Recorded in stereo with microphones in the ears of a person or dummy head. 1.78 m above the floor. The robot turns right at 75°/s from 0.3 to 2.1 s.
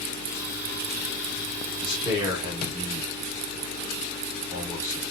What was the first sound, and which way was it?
A man speaking, 10° left (ahead or behind).